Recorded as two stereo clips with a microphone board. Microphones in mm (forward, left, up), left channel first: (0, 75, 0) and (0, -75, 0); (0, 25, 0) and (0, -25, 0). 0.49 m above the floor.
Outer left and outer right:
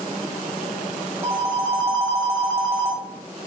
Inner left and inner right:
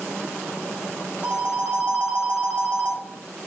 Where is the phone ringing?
20° right (ahead or behind), 1.2 m.